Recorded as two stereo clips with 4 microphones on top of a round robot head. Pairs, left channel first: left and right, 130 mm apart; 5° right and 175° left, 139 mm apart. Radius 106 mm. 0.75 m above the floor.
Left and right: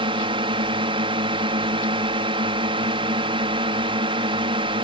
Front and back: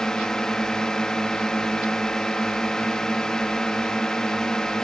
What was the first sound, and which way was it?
A drone, 90° right.